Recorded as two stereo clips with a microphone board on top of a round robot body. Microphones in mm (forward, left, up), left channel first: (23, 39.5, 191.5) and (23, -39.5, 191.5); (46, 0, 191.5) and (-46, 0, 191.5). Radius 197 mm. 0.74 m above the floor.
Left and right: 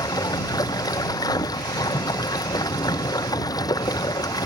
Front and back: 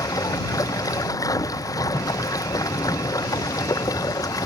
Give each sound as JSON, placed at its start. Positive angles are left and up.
{"t": 0.0, "sound": "running water", "azimuth_deg": 50}